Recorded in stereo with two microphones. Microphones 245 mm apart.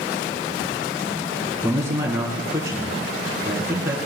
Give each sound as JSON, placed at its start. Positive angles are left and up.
{"t": 1.6, "sound": "a man speaking", "side_deg": -10, "distance_m": 3.0}